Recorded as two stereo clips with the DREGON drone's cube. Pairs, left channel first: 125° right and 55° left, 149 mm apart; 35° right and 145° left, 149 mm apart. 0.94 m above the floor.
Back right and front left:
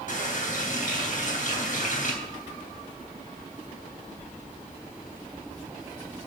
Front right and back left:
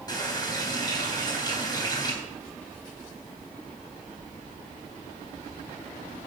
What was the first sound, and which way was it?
A running tap, 95° right.